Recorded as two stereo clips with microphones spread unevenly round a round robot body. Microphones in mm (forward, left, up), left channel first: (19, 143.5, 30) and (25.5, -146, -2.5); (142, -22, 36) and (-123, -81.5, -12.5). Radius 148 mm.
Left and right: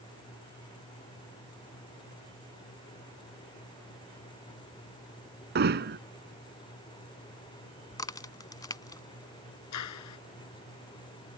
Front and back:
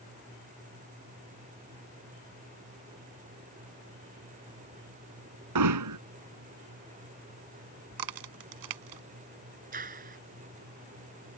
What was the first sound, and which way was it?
Hammering, 150° right.